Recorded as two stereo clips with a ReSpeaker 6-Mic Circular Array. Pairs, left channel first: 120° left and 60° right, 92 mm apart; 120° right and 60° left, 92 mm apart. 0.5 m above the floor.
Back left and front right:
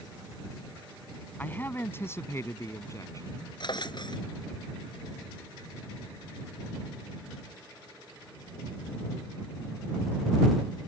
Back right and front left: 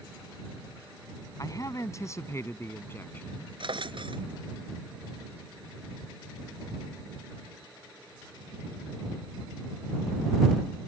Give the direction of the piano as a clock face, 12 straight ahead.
I don't hear a piano.